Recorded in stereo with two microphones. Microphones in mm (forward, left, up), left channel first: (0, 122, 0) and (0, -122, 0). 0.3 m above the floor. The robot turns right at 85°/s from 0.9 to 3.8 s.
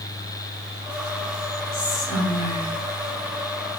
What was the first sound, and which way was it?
Whispering, 20° right.